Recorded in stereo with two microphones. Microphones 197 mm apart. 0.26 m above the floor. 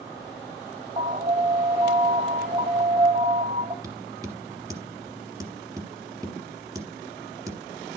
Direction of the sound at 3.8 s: 20° right (ahead or behind).